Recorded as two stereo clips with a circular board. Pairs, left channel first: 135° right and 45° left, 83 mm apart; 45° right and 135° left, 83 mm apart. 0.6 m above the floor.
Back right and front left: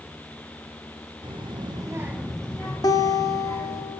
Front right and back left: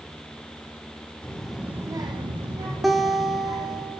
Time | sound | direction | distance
1.2 | a child speaking | 30° left | 0.9 m
2.8 | a guitar | 135° right | 0.7 m